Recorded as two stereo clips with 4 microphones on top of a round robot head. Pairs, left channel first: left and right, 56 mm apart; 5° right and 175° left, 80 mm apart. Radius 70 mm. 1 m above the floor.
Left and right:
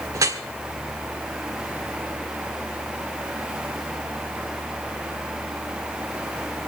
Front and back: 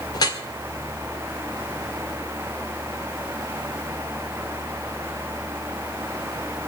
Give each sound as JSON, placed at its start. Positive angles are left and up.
{"t": 0.1, "sound": "dripping", "azimuth_deg": -50, "distance_m": 1.8}